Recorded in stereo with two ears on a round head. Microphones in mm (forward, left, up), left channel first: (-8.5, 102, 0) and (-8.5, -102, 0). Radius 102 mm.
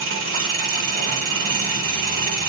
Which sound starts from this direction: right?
An engine running, at 0.0 s.